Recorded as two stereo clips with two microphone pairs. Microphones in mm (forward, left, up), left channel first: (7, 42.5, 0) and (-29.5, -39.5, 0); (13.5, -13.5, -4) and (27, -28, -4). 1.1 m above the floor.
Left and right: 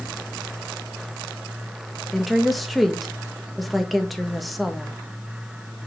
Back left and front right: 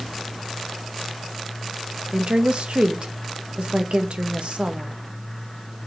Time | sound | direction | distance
2.1 | a woman speaking | 25° right | 0.9 m